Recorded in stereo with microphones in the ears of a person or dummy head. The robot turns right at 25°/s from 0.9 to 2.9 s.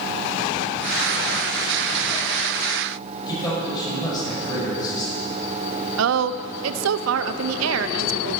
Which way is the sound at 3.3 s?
20° left (ahead or behind).